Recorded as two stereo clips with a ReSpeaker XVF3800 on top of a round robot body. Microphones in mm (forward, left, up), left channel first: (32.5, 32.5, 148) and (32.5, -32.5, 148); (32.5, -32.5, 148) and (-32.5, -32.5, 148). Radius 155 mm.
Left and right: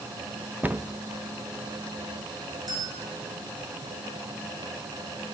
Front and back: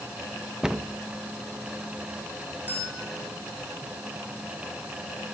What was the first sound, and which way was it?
A cupboard door, 110° right.